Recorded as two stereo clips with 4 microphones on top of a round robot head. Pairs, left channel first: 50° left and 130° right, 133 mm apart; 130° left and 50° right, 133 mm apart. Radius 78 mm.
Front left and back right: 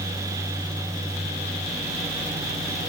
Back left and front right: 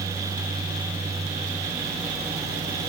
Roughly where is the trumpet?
I don't hear a trumpet.